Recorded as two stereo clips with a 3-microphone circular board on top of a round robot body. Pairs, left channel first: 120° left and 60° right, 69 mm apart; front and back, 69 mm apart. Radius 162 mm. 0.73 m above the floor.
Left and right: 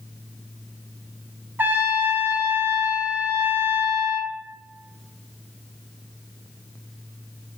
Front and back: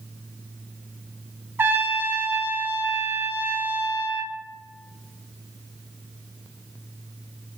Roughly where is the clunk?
No clunk in this recording.